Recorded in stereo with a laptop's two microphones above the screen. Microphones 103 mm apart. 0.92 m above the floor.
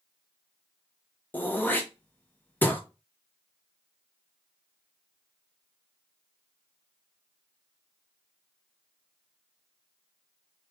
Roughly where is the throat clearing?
Centre.